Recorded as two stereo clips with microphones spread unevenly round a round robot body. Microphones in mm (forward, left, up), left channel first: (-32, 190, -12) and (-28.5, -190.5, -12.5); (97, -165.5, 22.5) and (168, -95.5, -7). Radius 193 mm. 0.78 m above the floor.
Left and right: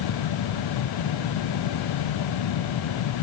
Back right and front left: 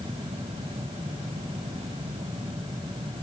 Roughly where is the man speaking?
I don't hear a man speaking.